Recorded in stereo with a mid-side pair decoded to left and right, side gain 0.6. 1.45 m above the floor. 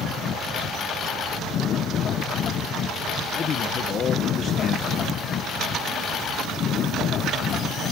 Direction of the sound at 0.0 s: 50° left.